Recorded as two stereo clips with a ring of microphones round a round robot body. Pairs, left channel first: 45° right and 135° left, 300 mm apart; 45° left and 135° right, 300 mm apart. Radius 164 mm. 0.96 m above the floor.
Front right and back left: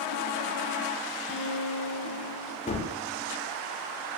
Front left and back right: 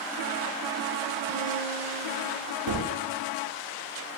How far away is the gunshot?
About 1.3 m.